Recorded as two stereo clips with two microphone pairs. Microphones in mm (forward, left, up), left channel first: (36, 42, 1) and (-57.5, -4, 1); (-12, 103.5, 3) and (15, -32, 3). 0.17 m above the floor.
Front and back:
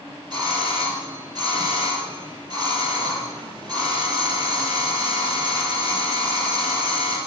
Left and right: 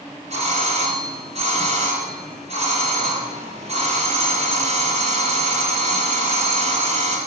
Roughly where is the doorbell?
Right.